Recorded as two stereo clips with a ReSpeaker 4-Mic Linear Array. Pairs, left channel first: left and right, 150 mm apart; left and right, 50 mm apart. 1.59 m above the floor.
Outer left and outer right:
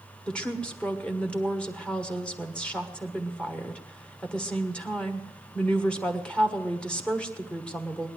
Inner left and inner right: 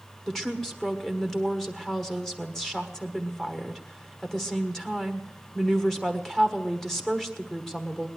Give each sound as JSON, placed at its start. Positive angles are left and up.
{"t": 0.3, "sound": "a woman speaking", "side_deg": 5, "distance_m": 1.4}